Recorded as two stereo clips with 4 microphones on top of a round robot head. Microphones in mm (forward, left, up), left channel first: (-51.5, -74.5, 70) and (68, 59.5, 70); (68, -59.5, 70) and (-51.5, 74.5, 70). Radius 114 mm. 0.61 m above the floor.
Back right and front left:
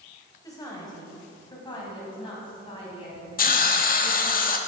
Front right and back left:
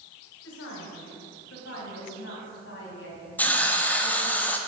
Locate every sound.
0.4 s a woman speaking: 60° right, 3.5 m; by 4.4 s 75° right, 5.5 m
3.4 s a hiss: 125° right, 1.2 m